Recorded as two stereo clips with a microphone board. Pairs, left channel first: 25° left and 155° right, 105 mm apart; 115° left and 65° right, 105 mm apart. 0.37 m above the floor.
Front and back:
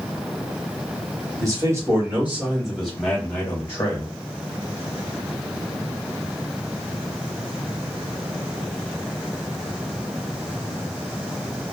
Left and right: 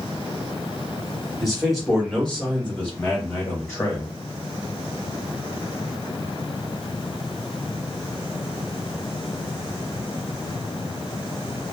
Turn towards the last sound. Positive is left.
turn(degrees=60)